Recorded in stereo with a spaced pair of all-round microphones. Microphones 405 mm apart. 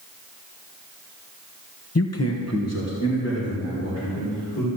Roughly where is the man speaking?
Left.